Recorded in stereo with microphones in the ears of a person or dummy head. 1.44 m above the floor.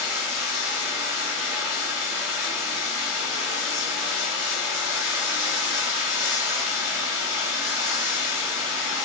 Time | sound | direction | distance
0.0 | running water | 10° right (ahead or behind) | 1.3 m